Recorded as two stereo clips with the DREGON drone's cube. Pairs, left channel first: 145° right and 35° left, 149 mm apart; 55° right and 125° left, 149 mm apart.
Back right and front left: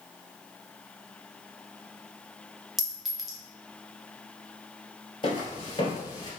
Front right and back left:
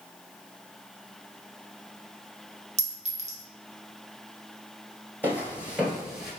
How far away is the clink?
About 0.9 m.